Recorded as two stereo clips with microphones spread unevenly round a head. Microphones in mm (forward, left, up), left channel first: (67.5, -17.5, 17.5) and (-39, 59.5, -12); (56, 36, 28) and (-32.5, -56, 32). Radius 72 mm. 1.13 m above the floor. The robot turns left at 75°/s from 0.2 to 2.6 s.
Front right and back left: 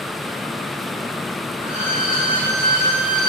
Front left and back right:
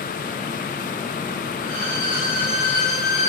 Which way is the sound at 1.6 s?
155° right.